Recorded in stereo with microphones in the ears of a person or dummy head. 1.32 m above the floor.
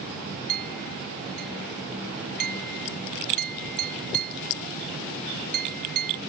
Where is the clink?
50° right (ahead or behind).